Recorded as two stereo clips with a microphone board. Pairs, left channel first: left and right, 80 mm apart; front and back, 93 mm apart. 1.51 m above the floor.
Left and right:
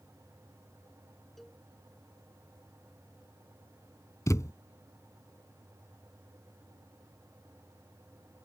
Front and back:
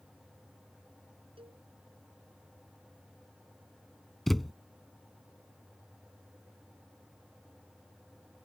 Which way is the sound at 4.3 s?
85° left.